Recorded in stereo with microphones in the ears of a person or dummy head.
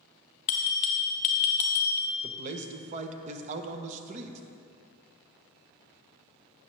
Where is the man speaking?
40° right (ahead or behind), 0.9 m.